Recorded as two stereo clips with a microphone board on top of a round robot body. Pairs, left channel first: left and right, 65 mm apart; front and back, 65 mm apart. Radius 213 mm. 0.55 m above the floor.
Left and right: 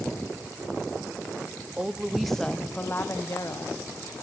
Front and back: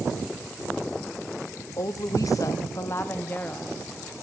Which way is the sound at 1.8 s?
20° right.